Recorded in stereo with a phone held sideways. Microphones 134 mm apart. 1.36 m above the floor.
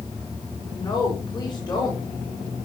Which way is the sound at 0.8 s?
30° left (ahead or behind).